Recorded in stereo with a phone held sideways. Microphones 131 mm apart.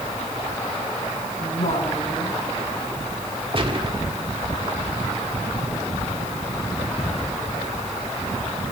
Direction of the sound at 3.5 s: 40° right (ahead or behind).